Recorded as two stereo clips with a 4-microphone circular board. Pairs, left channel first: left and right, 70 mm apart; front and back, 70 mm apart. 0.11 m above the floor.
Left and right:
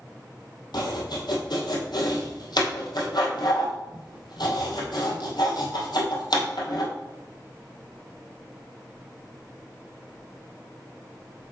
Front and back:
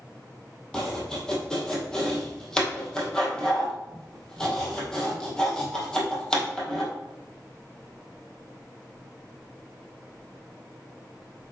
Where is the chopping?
80° left, 2.0 m.